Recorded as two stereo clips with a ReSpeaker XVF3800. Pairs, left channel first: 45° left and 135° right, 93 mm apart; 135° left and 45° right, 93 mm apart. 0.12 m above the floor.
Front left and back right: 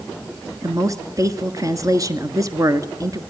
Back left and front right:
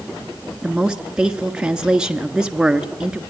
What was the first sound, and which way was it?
A woman speaking, 120° right.